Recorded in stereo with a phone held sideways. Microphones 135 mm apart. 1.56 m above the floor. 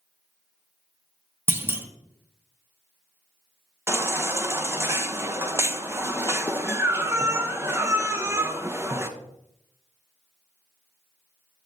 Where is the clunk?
15° right (ahead or behind), 0.8 m.